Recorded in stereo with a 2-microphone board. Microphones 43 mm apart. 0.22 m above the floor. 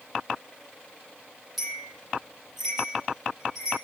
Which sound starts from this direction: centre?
A bell, at 1.6 s.